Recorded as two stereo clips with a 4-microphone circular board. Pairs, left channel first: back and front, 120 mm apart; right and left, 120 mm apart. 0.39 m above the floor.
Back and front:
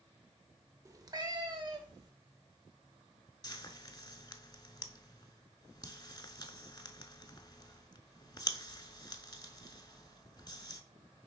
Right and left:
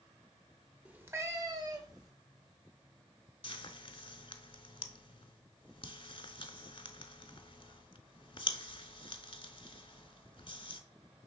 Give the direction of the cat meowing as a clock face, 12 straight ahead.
11 o'clock.